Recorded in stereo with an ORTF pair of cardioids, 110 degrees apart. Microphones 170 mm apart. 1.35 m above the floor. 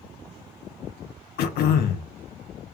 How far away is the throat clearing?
About 0.8 m.